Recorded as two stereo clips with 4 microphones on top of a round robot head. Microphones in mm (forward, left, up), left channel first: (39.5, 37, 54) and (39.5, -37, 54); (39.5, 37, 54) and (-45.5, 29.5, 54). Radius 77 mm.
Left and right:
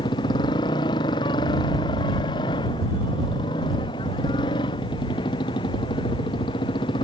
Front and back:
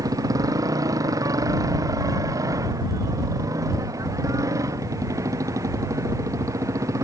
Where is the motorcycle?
135° left; by 7.0 s 130° left.